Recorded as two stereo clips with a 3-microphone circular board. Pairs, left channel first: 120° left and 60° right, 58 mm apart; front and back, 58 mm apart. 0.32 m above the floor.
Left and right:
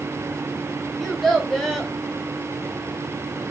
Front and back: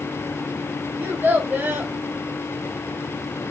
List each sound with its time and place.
1.0 s a child speaking: 155° right, 0.8 m